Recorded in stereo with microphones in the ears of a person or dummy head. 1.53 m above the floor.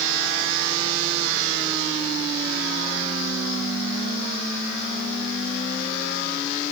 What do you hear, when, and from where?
Only background noise.